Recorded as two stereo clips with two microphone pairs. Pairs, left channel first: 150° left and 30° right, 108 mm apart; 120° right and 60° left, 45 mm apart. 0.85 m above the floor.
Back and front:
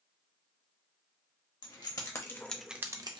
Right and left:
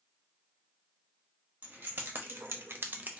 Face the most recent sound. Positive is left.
turn(degrees=5)